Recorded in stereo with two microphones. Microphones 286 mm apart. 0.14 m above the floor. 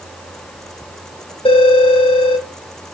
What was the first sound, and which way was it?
A phone ringing, 20° left (ahead or behind).